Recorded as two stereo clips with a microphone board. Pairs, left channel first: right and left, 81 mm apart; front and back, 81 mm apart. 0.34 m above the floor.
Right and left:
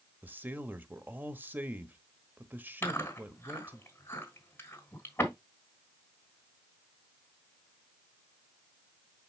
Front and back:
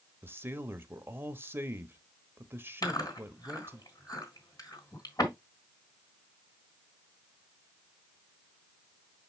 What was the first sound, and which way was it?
A man speaking, 140° left.